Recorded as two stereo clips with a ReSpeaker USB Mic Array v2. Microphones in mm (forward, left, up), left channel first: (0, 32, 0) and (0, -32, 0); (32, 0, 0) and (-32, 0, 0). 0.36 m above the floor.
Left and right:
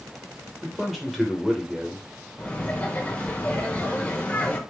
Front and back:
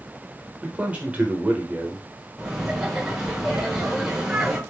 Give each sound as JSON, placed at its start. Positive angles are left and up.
{"t": 0.6, "sound": "a man speaking", "azimuth_deg": -175, "distance_m": 0.8}
{"t": 2.4, "sound": "laughter", "azimuth_deg": 105, "distance_m": 0.9}